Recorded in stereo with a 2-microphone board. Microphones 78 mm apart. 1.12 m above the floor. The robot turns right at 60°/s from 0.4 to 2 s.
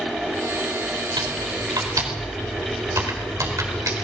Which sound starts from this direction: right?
Typing on a keyboard, at 1.2 s.